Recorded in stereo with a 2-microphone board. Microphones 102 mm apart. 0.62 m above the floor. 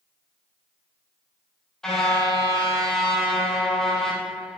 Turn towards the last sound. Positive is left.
turn(degrees=5)  # may be behind; listen again after turning